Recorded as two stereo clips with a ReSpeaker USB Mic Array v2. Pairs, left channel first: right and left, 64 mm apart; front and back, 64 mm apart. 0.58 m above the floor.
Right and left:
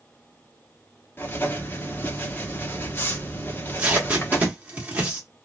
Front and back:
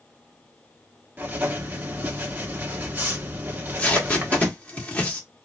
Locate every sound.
1.2 s writing: 130° right, 1.0 m
3.5 s tape being pulled: 40° left, 1.3 m